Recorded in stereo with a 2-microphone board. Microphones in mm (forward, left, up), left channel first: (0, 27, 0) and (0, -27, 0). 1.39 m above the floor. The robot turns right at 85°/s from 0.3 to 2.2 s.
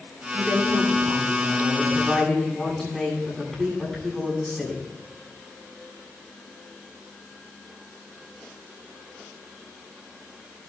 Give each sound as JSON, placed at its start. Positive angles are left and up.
{"t": 0.3, "sound": "a woman speaking", "azimuth_deg": -150, "distance_m": 9.5}